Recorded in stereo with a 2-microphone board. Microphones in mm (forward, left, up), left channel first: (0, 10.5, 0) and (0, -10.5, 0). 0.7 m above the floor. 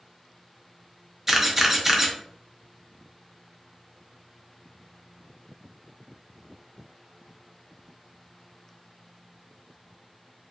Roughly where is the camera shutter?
Centre.